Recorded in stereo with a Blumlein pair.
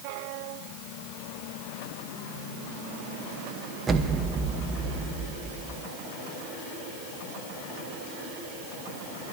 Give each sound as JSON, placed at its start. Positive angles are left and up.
{"t": 3.9, "sound": "an explosion", "azimuth_deg": -15, "distance_m": 1.1}